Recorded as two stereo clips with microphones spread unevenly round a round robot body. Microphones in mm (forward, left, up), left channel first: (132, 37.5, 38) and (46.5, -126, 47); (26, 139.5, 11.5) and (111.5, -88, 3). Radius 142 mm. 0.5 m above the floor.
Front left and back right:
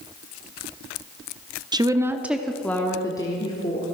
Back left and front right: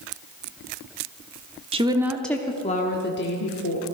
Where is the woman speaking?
75° right, 0.9 m; by 3.9 s 120° left, 1.5 m.